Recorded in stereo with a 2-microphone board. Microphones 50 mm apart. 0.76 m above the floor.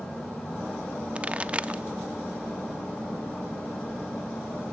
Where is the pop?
25° right (ahead or behind), 0.7 m.